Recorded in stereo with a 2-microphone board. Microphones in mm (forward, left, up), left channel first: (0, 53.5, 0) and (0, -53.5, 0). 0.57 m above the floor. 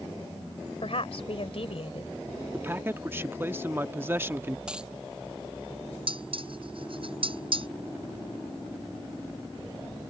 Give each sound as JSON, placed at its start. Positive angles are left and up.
{"t": 0.8, "sound": "a woman speaking", "side_deg": 65}
{"t": 2.5, "sound": "a man speaking", "side_deg": -20}
{"t": 4.7, "sound": "a dropped coin", "side_deg": -10}
{"t": 6.1, "sound": "dishes clattering", "side_deg": -55}